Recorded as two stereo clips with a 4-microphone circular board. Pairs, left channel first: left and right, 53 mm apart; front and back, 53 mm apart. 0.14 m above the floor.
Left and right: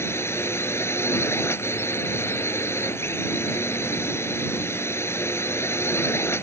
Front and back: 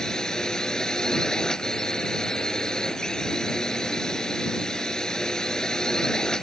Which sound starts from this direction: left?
A drone, at 0.0 s.